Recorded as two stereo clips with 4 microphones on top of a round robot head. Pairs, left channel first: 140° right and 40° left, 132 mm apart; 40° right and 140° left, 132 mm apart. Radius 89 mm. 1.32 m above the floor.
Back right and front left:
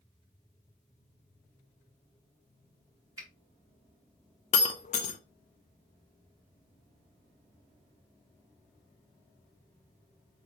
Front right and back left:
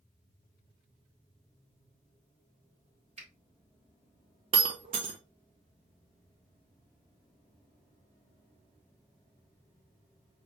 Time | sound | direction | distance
3.2 | a finger snap | 105° left | 1.9 m
4.5 | breaking glass | 175° right | 0.5 m